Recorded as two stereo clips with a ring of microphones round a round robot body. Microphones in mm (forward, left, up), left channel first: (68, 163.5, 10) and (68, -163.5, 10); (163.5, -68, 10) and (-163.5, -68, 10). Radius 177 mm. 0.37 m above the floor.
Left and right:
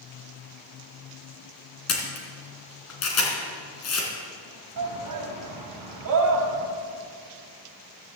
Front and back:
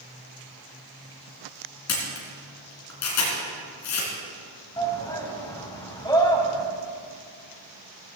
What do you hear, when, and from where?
1.9 s a camera shutter: 45° left, 3 m
4.8 s a shout: 75° right, 2.5 m